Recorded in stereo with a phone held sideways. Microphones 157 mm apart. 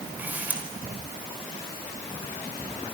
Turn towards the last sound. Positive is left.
turn(degrees=-10)  # may be behind; listen again after turning